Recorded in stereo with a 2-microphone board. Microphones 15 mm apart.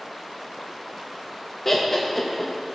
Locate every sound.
1.6 s laughter: 20° left (ahead or behind), 0.5 m